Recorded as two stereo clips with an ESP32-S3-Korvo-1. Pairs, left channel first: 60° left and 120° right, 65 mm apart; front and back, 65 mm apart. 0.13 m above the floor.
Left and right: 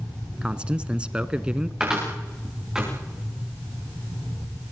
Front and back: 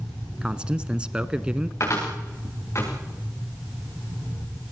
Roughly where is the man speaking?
Behind right.